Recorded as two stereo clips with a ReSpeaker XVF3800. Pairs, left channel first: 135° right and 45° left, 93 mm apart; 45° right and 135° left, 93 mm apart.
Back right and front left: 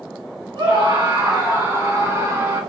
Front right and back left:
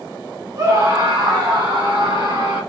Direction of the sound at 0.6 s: 85° left.